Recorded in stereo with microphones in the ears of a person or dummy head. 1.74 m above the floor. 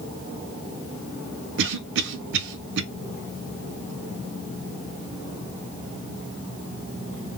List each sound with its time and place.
1.6 s a cough: 70° right (ahead or behind), 0.6 m